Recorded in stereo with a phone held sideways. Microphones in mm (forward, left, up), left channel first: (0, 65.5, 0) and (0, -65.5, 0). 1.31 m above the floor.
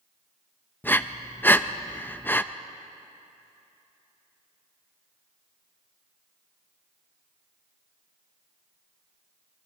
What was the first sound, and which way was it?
Breathing, 15° left (ahead or behind).